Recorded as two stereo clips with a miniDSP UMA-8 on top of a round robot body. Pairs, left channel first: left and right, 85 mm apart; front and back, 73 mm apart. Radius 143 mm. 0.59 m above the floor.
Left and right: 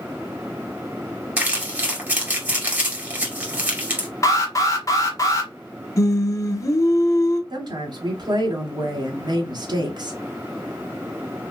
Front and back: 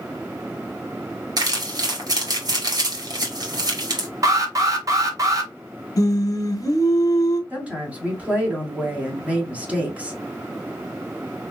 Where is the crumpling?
155° right, 2.5 m.